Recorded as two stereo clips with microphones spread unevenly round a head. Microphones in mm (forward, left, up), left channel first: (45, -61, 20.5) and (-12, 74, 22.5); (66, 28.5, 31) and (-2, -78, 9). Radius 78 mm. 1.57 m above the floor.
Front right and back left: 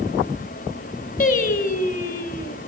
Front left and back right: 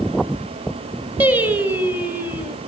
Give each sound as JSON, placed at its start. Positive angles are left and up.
{"t": 1.2, "sound": "singing", "azimuth_deg": -40, "distance_m": 1.2}